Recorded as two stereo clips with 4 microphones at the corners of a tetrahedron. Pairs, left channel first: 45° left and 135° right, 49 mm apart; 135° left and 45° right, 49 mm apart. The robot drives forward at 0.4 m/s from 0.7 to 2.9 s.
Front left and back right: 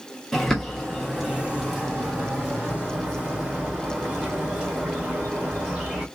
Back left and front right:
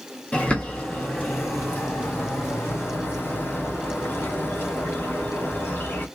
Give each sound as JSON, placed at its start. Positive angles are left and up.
{"t": 0.3, "sound": "a bird", "azimuth_deg": 120, "distance_m": 0.9}